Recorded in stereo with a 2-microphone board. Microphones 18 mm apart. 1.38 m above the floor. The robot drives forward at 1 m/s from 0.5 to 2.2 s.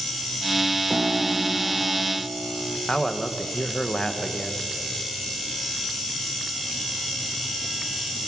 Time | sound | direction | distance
0.9 | a piano | 55° right (ahead or behind) | 1.0 m
2.9 | a man speaking | 40° left (ahead or behind) | 1.3 m